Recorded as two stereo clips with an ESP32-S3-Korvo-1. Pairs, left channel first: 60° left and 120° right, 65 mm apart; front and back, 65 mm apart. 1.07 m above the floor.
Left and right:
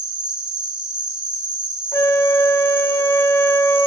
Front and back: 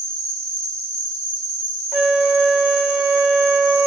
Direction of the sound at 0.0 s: 170° left.